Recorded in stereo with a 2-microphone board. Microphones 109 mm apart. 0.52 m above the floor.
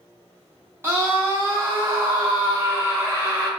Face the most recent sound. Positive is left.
turn(degrees=-20)  # may be behind; listen again after turning